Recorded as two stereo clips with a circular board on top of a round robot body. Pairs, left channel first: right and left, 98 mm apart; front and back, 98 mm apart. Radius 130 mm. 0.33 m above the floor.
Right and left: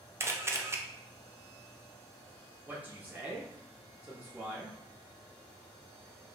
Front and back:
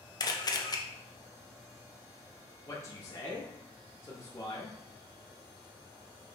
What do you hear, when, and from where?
0.2 s a camera shutter: 35° left, 0.7 m
2.7 s a man speaking: 30° left, 0.9 m